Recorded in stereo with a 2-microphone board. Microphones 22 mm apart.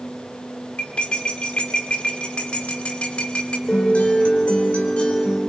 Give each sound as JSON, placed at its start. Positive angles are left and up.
{"t": 0.8, "sound": "cutlery clinking", "side_deg": 65, "distance_m": 2.0}
{"t": 3.7, "sound": "a guitar", "side_deg": 70, "distance_m": 4.5}